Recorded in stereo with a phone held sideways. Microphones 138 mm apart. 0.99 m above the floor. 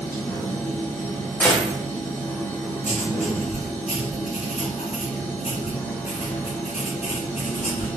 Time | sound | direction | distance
0.0 | a machine running | 15° left (ahead or behind) | 1.6 m
1.4 | a gunshot | 10° left (ahead or behind) | 1.0 m
2.8 | writing | 60° left (ahead or behind) | 1.9 m